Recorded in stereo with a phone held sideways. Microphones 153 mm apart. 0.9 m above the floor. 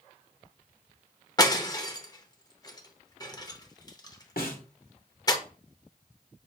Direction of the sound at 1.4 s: 25° left (ahead or behind).